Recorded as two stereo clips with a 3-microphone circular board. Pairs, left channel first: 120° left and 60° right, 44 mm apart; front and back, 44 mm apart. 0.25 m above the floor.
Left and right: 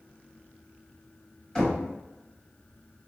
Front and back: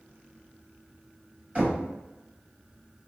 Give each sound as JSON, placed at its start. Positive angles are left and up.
{"t": 1.6, "sound": "knocking", "azimuth_deg": 180, "distance_m": 1.3}